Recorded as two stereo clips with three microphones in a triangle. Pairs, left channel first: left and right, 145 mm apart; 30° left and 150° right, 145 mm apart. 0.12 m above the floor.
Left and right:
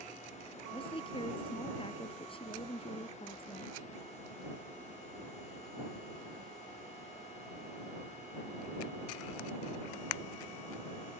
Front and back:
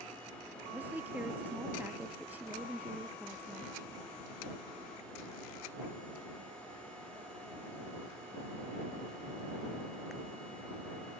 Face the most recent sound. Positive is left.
turn(degrees=135)